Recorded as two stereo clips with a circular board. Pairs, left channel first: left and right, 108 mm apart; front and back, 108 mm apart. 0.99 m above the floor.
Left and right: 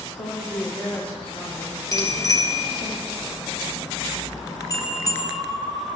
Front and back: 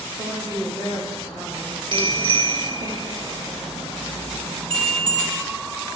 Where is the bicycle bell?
145° left, 3 m.